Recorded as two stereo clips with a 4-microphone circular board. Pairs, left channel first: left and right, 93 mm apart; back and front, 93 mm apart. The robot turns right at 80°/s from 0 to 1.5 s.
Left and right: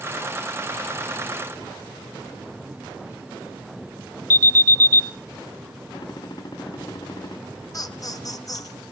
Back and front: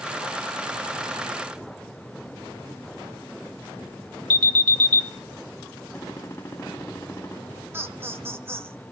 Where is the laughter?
60° left, 1.8 m.